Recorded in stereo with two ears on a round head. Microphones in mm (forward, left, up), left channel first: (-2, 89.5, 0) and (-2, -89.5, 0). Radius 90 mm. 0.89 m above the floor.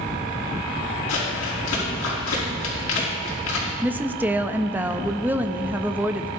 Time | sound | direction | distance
1.1 | crumpling | 70° left (ahead or behind) | 5.5 m
3.8 | a woman speaking | 10° right (ahead or behind) | 0.5 m